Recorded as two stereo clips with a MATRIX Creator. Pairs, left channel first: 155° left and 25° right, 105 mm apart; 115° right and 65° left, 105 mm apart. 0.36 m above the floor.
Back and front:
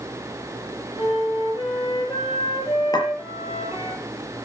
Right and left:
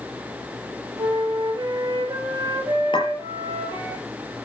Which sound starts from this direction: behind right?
A clink, at 2.9 s.